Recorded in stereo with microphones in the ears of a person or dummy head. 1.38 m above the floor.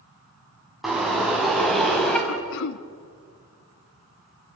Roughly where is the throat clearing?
Left.